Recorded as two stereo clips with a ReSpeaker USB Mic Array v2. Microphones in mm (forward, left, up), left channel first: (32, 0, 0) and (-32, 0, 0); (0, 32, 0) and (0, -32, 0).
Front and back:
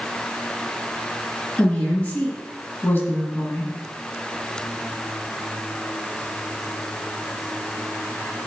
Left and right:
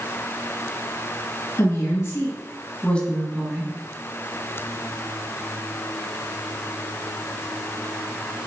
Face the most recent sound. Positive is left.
turn(degrees=-35)